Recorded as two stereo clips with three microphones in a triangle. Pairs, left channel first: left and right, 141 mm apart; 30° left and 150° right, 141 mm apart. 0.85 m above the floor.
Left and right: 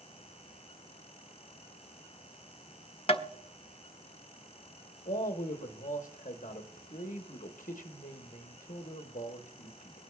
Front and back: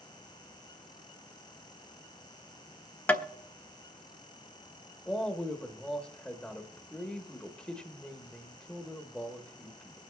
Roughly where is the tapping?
Left.